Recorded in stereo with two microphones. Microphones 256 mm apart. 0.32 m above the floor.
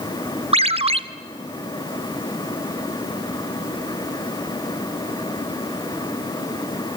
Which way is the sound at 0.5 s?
25° right (ahead or behind).